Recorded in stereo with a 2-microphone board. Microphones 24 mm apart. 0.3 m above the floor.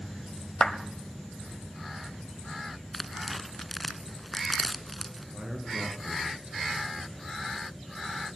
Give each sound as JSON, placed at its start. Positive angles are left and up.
{"t": 0.6, "sound": "a clap", "side_deg": 30, "distance_m": 1.6}
{"t": 2.9, "sound": "tearing paper", "side_deg": 5, "distance_m": 1.2}
{"t": 5.3, "sound": "a man speaking", "side_deg": -70, "distance_m": 5.5}